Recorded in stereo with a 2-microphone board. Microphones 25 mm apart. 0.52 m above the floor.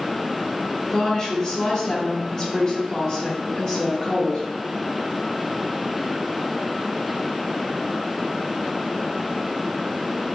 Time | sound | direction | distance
0.9 | a woman speaking | 35° left (ahead or behind) | 1.4 m